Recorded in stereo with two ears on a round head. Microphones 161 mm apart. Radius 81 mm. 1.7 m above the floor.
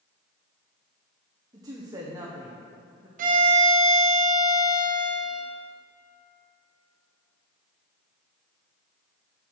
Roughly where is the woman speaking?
Right.